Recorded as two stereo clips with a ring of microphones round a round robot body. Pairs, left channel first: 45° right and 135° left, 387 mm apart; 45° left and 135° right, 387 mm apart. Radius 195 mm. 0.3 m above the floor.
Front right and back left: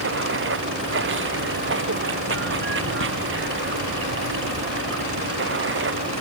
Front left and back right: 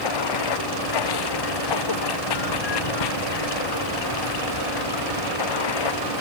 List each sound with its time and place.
0.0 s running water: 75° left